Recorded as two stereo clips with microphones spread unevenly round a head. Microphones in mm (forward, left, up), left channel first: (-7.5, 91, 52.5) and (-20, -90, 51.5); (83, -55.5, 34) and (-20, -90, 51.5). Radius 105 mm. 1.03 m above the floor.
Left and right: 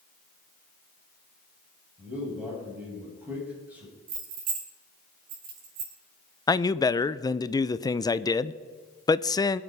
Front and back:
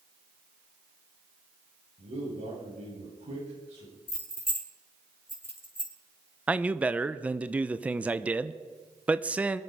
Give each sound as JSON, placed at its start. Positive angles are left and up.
{"t": 2.0, "sound": "a man speaking", "azimuth_deg": -175, "distance_m": 8.5}
{"t": 4.1, "sound": "keys jangling", "azimuth_deg": -50, "distance_m": 5.5}
{"t": 6.5, "sound": "a man speaking", "azimuth_deg": 115, "distance_m": 0.6}